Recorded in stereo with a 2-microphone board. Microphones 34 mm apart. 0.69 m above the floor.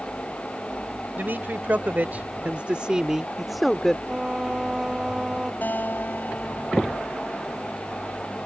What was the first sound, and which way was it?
A man speaking, 70° right (ahead or behind).